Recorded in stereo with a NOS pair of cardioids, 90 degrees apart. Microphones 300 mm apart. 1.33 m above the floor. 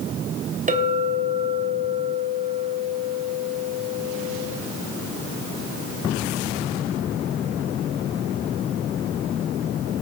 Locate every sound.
0.7 s a clink: 25° right, 3 m